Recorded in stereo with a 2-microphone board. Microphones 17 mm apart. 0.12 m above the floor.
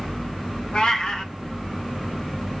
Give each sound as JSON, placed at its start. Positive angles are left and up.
{"t": 0.7, "sound": "a cat meowing", "side_deg": 60, "distance_m": 0.9}